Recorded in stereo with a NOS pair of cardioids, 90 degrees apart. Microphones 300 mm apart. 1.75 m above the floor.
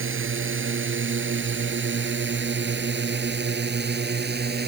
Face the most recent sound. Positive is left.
turn(degrees=-35)